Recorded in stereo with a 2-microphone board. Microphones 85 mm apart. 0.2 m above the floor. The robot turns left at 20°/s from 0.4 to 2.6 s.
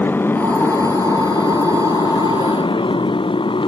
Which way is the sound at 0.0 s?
25° left (ahead or behind).